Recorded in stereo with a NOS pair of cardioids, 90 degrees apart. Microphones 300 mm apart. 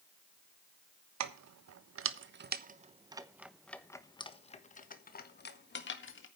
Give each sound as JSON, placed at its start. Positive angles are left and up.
{"t": 1.2, "sound": "keys jangling", "azimuth_deg": -65, "distance_m": 1.3}